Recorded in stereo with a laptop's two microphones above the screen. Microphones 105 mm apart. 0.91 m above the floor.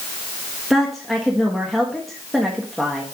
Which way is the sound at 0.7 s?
Centre (ahead or behind).